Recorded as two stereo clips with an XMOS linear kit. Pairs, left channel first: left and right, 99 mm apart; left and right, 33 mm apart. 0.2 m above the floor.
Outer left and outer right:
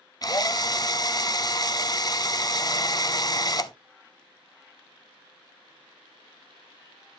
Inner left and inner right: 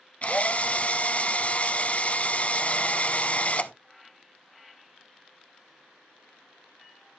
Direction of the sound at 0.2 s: 40° left (ahead or behind).